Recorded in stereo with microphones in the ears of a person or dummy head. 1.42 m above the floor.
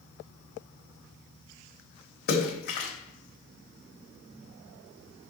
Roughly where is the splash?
Left.